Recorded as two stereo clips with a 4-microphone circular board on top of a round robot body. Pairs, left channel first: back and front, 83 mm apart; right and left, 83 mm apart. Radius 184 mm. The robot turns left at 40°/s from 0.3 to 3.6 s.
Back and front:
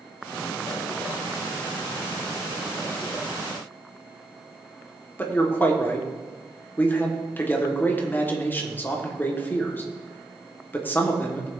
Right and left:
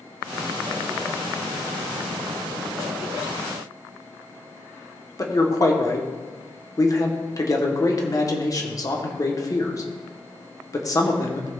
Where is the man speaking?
120° right, 2.0 m.